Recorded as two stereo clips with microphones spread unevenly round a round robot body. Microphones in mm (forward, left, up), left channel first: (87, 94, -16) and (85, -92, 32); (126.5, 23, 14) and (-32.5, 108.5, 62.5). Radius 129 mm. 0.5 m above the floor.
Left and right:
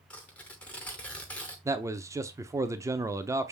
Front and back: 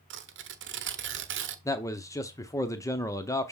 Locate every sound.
0.1 s tearing paper: 160° left, 0.8 m
1.6 s a man speaking: 5° right, 0.7 m